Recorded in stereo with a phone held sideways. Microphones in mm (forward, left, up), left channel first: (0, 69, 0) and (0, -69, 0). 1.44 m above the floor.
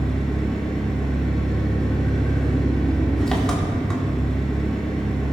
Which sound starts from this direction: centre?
An engine running, at 0.0 s.